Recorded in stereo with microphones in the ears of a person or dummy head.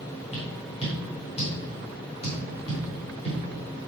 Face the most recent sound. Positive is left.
turn(degrees=30)  # may be behind; listen again after turning